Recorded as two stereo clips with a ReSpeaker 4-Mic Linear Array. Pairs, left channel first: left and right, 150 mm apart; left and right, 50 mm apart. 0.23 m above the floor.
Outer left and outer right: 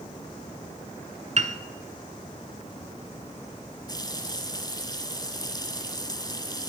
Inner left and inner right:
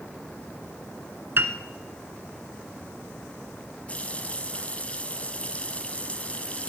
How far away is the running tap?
About 1.2 m.